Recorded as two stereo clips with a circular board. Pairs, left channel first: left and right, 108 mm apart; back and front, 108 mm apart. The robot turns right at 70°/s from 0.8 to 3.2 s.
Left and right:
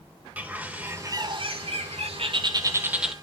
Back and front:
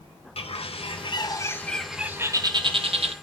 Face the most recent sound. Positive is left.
turn(degrees=5)